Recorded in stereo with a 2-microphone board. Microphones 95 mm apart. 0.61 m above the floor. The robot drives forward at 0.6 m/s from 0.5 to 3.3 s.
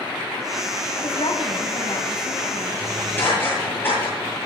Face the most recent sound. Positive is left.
turn(degrees=20)  # may be behind; listen again after turning